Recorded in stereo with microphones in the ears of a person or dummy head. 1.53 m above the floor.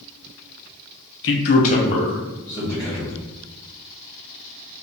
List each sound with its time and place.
1.2 s a man speaking: 70° left (ahead or behind), 0.6 m; by 3.2 s 10° left (ahead or behind), 2.0 m